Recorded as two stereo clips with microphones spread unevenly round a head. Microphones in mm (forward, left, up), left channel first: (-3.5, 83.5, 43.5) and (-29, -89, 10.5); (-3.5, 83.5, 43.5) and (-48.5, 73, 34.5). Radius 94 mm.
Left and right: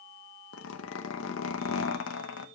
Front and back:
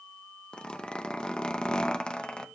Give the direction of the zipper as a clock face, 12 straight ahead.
9 o'clock.